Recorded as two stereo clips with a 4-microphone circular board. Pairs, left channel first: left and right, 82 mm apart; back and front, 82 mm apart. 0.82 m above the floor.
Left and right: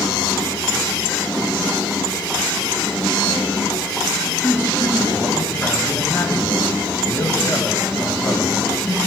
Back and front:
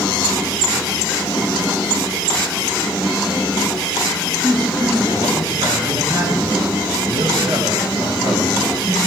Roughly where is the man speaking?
Ahead left.